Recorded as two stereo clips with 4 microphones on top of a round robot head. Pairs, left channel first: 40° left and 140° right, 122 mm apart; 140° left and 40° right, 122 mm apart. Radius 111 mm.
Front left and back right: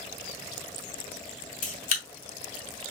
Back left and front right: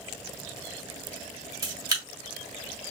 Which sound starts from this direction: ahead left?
A camera shutter, at 1.6 s.